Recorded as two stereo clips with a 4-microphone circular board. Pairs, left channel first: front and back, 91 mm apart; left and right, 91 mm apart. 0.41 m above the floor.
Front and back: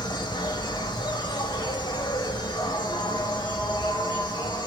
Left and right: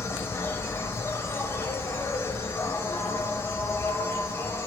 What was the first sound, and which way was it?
An insect, 30° left.